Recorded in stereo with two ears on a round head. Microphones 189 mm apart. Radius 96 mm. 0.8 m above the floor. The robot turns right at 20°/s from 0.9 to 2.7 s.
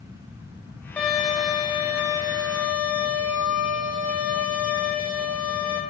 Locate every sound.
1.0 s a violin: 175° left, 0.9 m; by 5.8 s 150° right, 0.9 m